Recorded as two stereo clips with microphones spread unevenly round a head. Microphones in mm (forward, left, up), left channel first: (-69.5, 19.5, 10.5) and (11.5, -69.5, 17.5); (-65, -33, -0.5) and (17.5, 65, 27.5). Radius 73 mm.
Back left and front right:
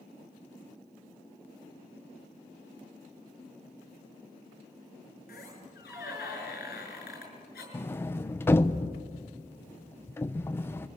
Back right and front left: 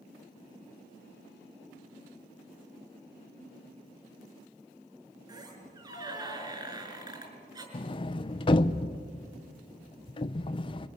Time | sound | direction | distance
5.3 | a squeak | 105° left | 6 m
7.7 | a sliding door | 165° right | 0.6 m